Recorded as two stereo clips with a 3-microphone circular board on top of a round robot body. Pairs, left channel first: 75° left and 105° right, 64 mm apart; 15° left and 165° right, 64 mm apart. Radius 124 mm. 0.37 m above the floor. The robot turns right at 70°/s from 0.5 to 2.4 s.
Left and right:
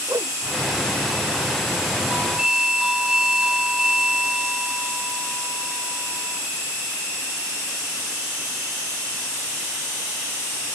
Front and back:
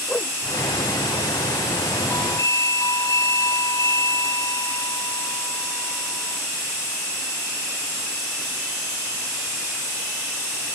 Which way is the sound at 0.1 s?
55° right.